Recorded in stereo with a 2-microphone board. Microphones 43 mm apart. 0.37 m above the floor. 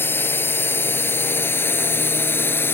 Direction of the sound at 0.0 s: 50° left (ahead or behind).